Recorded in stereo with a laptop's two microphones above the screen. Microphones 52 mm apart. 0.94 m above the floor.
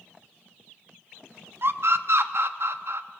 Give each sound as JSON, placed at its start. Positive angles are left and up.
{"t": 1.6, "sound": "a scream", "side_deg": -55, "distance_m": 1.2}